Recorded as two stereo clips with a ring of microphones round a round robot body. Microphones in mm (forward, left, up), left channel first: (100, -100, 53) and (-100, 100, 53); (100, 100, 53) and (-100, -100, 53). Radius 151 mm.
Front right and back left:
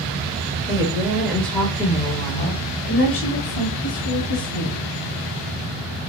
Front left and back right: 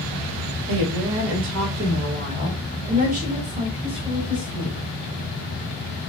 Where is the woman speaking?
155° right, 1.1 m; by 4.9 s 60° right, 2 m.